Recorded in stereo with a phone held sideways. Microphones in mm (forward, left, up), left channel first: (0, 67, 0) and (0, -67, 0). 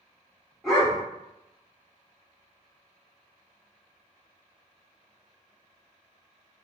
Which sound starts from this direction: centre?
A dog barking, at 0.6 s.